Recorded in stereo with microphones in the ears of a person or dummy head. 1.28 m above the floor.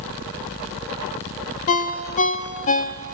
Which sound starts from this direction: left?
A ringtone, at 1.7 s.